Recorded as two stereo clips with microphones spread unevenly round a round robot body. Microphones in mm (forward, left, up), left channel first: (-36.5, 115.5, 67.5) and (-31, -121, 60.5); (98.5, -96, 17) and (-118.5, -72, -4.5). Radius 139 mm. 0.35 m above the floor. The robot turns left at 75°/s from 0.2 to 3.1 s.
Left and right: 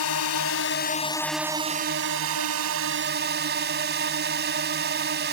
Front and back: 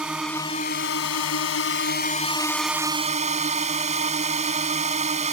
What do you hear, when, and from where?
0.0 s a drone: 85° left; by 5.3 s 130° right